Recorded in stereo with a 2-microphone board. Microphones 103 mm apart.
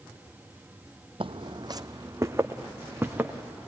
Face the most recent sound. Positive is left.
turn(degrees=-15)  # may be behind; listen again after turning